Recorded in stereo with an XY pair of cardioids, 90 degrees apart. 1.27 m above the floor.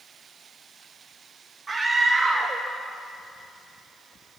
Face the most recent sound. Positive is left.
turn(degrees=-30)